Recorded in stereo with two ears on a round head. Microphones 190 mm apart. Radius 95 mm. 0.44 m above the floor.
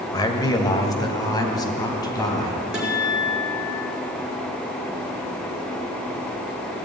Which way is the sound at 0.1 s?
20° left (ahead or behind).